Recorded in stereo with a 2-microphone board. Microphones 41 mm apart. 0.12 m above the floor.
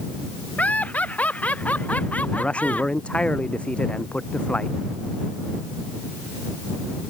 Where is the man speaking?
30° left (ahead or behind).